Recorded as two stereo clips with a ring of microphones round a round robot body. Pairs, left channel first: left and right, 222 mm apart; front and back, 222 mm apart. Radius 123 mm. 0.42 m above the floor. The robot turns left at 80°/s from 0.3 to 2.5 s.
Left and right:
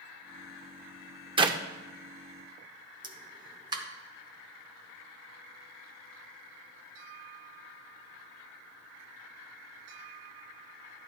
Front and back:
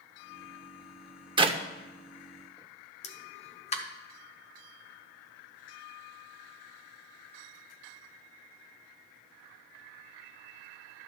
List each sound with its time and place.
1.4 s a clap: 135° right, 0.7 m; by 1.6 s 150° right, 0.7 m
3.0 s a pop: 35° right, 0.9 m